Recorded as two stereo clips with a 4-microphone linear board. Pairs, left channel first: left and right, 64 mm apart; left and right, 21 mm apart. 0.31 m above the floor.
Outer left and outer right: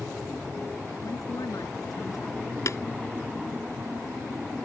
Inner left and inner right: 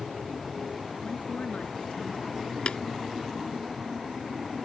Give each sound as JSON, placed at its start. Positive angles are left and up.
{"t": 1.0, "sound": "a woman speaking", "side_deg": 60}
{"t": 2.7, "sound": "tapping", "side_deg": 50}